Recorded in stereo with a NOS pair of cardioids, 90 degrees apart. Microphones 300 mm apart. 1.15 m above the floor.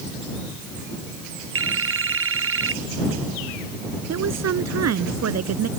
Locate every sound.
1.6 s a phone ringing: 45° right
4.1 s a woman speaking: 55° right